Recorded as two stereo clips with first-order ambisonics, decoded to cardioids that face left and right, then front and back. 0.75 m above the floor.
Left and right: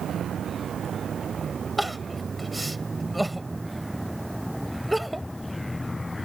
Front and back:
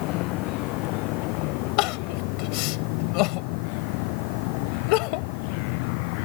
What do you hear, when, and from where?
0.0 s a vehicle: 30° right; by 6.3 s 5° left
1.8 s crying: 5° right